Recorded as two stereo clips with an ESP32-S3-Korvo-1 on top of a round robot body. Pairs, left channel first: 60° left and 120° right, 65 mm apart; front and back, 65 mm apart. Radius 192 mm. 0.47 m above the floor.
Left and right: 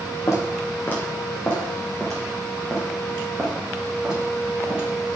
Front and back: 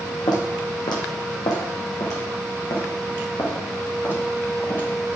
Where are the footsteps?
10° left, 1.5 m; by 4.9 s 45° right, 3.5 m.